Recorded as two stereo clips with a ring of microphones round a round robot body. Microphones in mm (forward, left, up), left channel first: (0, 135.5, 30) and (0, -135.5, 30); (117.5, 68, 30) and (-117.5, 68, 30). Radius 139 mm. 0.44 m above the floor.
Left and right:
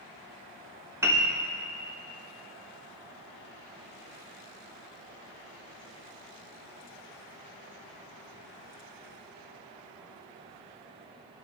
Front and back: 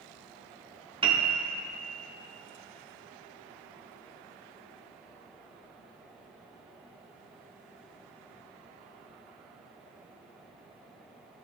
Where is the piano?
155° right, 0.9 m.